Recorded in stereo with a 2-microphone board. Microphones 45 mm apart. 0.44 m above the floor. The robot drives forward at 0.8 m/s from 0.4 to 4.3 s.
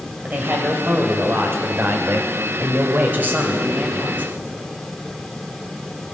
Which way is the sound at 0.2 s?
40° right (ahead or behind).